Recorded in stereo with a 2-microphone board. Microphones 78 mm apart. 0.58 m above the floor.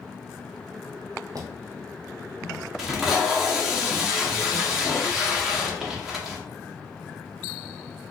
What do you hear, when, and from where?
1.4 s footsteps: 50° right (ahead or behind), 1.0 m; by 2.7 s centre (ahead or behind), 1.5 m
2.8 s tape being pulled: 5° right (ahead or behind), 0.8 m